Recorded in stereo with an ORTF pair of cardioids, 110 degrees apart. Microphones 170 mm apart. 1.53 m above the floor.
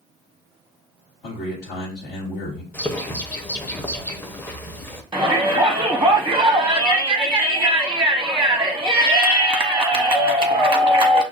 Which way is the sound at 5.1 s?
5° right.